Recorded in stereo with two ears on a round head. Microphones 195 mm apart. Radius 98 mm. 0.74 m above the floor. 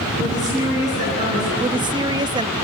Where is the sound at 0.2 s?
35° right (ahead or behind), 9 m.